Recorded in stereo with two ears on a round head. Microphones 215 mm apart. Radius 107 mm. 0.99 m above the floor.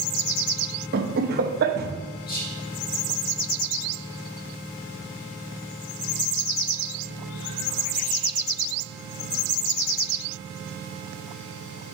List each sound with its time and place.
0.9 s laughter: 45° right (ahead or behind), 0.9 m
2.3 s whispering: 40° left (ahead or behind), 1.9 m